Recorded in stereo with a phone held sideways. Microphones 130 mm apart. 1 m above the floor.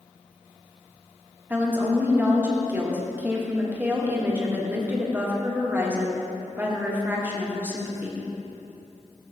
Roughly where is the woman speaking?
Centre.